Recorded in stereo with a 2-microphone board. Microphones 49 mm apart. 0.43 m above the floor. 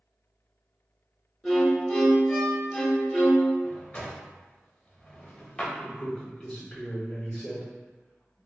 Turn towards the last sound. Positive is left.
turn(degrees=20)  # may be behind; listen again after turning